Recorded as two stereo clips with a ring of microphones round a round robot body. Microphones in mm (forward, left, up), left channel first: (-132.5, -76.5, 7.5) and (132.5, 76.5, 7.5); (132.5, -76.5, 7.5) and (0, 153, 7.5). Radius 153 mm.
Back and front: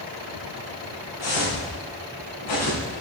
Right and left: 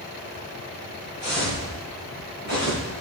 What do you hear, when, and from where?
1.2 s footsteps: 165° right, 4 m; by 3.0 s 170° left, 3.5 m